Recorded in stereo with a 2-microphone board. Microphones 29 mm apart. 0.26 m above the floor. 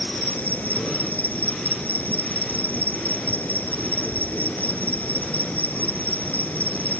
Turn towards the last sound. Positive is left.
turn(degrees=75)  # may be behind; listen again after turning